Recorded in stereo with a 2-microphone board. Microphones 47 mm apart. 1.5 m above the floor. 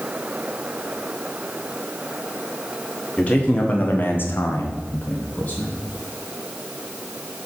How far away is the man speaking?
About 1.9 m.